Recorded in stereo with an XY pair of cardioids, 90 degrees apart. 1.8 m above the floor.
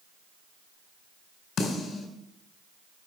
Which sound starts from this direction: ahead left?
A snare drum, at 1.6 s.